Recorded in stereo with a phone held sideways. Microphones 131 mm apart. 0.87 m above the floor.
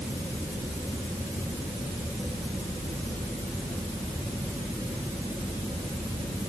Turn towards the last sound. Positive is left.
No sound to turn to.